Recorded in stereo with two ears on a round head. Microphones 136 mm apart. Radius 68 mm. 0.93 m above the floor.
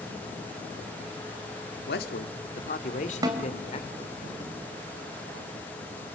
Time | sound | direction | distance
1.9 | a man speaking | 80° left | 1.9 m
3.2 | a snare drum | 30° right (ahead or behind) | 2.5 m